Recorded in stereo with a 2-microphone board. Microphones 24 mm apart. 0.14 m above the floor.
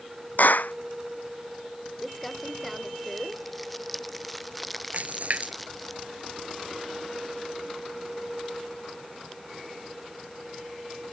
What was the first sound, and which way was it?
A clap, 80° left.